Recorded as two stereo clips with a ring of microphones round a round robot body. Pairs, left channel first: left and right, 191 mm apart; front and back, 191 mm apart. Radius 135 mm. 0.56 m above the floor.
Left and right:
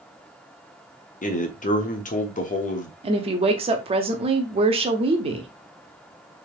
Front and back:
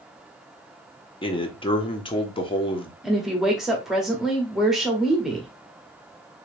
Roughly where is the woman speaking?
Right.